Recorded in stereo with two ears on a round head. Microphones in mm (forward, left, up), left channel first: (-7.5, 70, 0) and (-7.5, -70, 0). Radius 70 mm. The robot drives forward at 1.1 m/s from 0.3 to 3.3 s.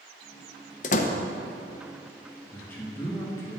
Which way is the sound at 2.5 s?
10° left (ahead or behind).